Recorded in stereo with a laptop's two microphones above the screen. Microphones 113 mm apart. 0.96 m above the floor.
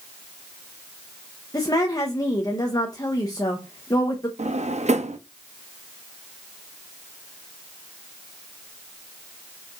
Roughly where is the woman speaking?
Left.